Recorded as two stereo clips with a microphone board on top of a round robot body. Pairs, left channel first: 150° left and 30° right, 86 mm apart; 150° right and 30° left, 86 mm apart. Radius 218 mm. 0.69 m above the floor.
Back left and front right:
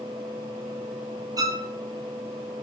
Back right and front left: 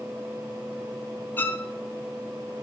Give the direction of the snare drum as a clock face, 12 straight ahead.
I don't hear a snare drum.